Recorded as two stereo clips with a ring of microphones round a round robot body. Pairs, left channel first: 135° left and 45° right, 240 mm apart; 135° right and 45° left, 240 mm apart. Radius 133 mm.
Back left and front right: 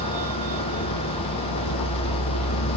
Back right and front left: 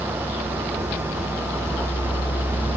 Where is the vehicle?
135° left; by 2.8 s 145° left.